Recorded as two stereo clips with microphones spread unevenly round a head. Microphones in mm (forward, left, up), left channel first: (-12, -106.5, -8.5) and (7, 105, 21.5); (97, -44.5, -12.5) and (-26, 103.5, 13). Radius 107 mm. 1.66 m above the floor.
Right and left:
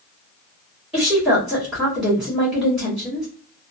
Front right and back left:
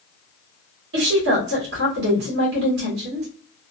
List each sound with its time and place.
0.9 s a woman speaking: 170° left, 1.3 m